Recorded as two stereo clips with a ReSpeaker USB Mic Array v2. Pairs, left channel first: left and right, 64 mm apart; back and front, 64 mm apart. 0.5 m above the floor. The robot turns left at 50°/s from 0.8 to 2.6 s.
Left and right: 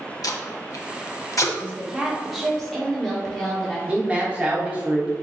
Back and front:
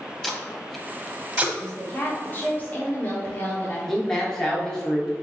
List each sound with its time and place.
0.2 s tape being pulled: 95° left, 0.6 m; by 1.4 s 60° left, 0.6 m
1.6 s a woman speaking: 140° right, 1.1 m; by 3.8 s 170° left, 1.1 m
3.9 s a man speaking: 110° right, 1.0 m